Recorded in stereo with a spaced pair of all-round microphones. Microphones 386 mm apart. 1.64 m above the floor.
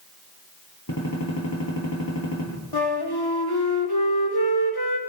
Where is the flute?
75° left (ahead or behind), 3 m.